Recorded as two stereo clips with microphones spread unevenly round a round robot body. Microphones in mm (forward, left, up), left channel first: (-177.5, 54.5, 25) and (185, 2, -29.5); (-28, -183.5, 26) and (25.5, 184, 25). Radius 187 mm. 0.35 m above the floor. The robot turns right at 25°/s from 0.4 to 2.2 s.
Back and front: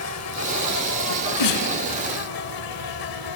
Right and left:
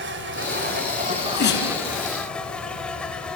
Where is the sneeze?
170° right, 4.5 m; by 1.7 s 155° right, 4.5 m.